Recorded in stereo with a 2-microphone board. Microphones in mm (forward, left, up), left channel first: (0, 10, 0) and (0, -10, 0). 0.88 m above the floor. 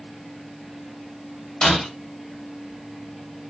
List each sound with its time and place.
1.6 s breaking glass: 45° left (ahead or behind), 1.8 m